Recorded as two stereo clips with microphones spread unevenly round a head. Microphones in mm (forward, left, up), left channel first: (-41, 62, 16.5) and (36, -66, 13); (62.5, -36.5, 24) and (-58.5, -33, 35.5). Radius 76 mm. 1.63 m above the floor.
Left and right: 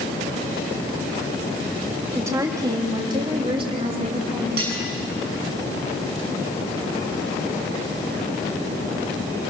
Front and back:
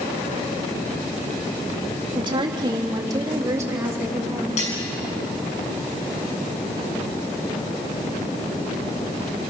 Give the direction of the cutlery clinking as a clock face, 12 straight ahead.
1 o'clock.